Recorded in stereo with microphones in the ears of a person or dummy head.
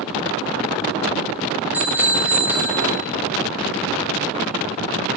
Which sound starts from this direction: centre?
A bicycle bell, at 1.7 s.